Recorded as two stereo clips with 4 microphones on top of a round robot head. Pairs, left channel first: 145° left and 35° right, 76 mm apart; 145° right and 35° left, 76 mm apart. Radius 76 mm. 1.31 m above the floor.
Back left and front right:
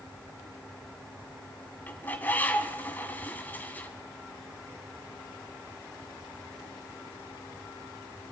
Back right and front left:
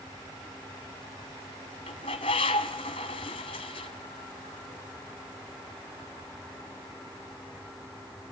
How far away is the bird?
About 1.8 m.